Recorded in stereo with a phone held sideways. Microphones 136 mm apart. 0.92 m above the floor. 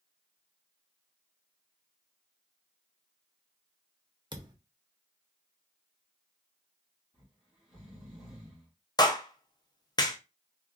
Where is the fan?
I don't hear a fan.